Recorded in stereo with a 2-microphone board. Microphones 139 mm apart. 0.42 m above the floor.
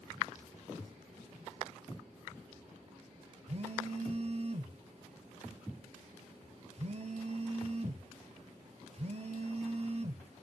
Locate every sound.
3.5 s a phone buzzing: 50° right (ahead or behind), 0.8 m